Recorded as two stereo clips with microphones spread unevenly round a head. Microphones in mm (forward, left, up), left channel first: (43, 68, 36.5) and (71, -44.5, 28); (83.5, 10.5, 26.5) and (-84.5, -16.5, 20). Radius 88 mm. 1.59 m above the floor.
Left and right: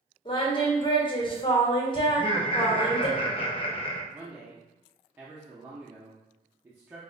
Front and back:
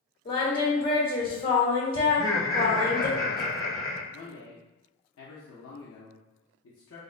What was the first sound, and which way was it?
Singing, 55° left.